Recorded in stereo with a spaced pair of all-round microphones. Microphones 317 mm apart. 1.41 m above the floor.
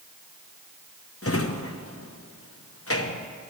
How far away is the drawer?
About 0.9 m.